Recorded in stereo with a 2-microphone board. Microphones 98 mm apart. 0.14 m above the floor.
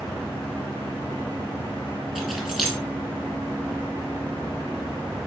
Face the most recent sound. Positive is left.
turn(degrees=-5)  # may be behind; listen again after turning